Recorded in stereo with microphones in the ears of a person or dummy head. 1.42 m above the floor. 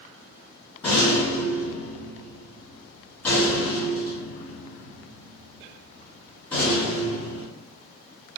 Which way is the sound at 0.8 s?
10° left (ahead or behind).